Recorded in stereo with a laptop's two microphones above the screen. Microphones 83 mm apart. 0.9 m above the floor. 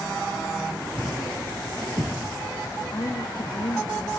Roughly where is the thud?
Right.